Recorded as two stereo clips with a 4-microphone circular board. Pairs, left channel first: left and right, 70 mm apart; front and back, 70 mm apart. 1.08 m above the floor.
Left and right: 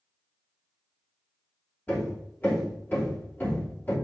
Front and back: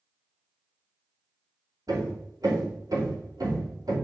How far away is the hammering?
About 3 m.